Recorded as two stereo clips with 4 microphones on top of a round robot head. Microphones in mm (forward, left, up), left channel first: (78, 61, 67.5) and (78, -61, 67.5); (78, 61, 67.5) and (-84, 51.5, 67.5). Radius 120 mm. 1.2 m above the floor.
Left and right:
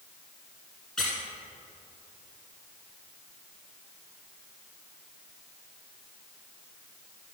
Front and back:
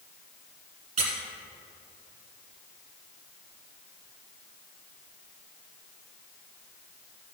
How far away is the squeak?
About 1.2 m.